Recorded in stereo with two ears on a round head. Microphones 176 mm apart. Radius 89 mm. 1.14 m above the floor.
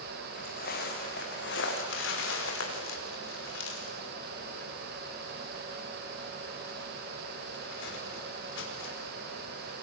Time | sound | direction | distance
0.3 | footsteps | 40° left (ahead or behind) | 5 m
1.8 | crumpling | 60° left (ahead or behind) | 4.5 m